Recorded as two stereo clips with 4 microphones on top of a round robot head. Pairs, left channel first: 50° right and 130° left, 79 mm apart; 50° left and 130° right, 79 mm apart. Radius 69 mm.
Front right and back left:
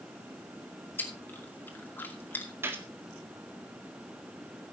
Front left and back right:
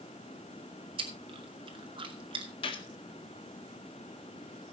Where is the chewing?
120° right, 2.5 m.